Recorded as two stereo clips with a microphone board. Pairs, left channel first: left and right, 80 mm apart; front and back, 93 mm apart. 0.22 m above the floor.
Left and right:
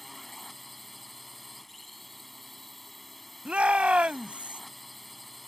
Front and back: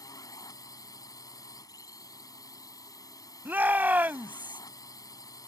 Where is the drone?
Straight ahead.